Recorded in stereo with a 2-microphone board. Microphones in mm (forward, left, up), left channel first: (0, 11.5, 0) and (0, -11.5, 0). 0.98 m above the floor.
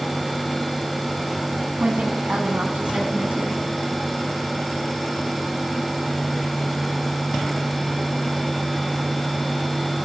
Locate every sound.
1.8 s a woman speaking: 65° right (ahead or behind), 8.5 m; by 3.6 s 60° right (ahead or behind), 9 m